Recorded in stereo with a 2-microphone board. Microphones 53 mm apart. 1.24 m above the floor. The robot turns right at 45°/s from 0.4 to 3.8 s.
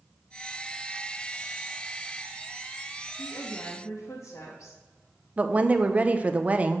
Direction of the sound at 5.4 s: 30° right (ahead or behind).